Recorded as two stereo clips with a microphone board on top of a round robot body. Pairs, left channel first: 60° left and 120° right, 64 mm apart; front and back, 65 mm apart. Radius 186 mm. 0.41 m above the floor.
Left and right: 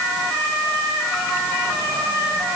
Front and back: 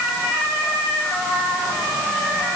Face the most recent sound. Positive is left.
No sound to turn to.